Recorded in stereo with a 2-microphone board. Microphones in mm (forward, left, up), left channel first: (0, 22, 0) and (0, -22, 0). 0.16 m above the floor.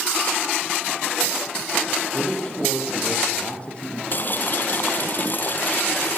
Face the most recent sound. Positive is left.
turn(degrees=45)  # may be behind; listen again after turning